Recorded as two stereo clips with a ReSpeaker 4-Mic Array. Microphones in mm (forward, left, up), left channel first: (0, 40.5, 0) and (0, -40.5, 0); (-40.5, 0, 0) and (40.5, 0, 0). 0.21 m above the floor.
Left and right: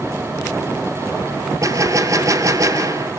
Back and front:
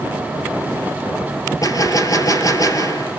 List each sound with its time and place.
1.6 s a gunshot: 140° right, 1.5 m